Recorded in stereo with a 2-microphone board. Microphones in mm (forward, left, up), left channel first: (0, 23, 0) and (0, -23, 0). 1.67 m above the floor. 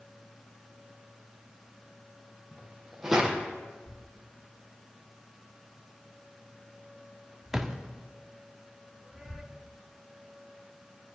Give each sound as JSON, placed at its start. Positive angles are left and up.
{"t": 2.5, "sound": "footsteps", "side_deg": -10, "distance_m": 3.5}
{"t": 3.9, "sound": "a thud", "side_deg": -10, "distance_m": 1.3}